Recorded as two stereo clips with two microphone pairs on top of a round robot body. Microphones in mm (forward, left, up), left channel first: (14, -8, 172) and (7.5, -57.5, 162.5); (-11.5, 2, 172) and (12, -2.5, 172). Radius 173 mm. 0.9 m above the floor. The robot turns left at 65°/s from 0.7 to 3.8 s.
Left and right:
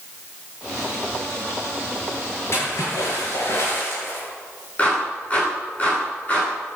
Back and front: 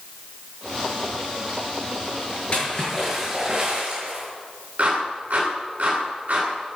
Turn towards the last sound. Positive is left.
turn(degrees=20)